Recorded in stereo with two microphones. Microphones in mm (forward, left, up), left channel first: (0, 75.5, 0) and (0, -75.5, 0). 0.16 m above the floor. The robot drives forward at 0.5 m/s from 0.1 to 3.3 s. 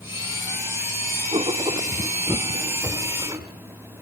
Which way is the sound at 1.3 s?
35° right (ahead or behind).